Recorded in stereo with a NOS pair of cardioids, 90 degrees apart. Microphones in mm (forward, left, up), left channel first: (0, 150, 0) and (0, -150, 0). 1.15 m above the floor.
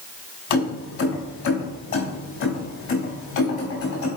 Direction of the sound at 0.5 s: 65° left.